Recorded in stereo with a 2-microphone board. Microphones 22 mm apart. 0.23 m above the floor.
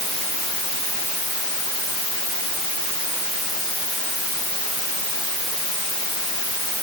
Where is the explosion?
I don't hear an explosion.